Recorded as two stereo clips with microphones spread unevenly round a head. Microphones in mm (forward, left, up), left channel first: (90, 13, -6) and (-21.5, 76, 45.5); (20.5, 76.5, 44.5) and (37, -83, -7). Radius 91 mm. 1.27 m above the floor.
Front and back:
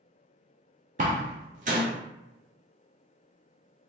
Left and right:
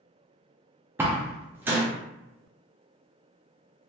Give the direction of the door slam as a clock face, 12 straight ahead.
6 o'clock.